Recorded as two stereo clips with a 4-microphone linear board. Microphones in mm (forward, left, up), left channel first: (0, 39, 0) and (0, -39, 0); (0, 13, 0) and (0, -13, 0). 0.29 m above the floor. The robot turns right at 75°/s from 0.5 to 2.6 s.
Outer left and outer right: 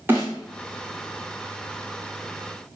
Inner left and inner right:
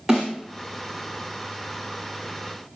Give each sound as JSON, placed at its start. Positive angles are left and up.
{"t": 0.1, "sound": "a snare drum", "side_deg": -25, "distance_m": 6.5}